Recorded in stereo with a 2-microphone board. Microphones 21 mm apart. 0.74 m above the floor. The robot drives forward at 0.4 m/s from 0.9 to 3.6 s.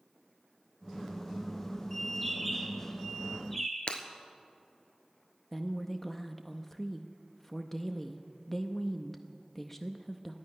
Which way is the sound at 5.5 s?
15° left (ahead or behind).